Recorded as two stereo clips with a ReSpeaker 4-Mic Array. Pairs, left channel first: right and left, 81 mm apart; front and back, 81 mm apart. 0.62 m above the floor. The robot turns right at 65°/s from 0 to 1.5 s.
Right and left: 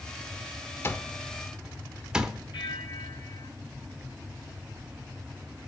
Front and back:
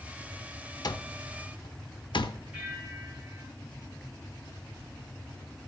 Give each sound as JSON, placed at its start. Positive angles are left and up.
{"t": 0.8, "sound": "an alarm clock", "azimuth_deg": -35, "distance_m": 0.8}
{"t": 2.5, "sound": "a bell", "azimuth_deg": -100, "distance_m": 3.0}